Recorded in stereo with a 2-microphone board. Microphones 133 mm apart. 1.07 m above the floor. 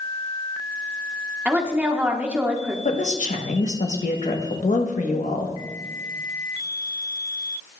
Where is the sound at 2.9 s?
70° left (ahead or behind), 1.0 m.